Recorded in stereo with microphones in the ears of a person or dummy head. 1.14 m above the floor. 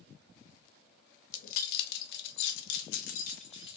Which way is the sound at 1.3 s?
50° left (ahead or behind).